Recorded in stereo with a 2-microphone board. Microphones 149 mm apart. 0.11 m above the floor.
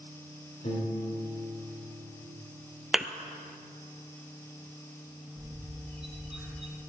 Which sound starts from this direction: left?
A piano, at 0.6 s.